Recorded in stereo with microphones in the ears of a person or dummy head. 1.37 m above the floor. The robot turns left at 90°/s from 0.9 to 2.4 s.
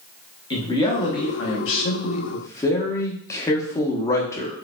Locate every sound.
0.5 s a man speaking: 155° left, 0.9 m; by 4.6 s 20° left, 0.9 m